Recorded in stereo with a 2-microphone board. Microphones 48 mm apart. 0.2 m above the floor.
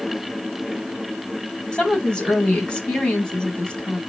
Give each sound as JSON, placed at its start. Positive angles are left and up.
{"t": 1.7, "sound": "a woman speaking", "side_deg": 20, "distance_m": 1.2}